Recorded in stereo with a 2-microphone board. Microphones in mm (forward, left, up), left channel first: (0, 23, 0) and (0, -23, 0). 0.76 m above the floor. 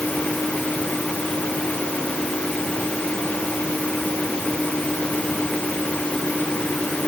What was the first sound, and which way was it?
Only background noise.